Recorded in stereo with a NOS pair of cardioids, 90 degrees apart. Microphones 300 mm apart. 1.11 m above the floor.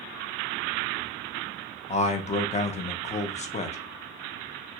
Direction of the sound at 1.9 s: 25° left.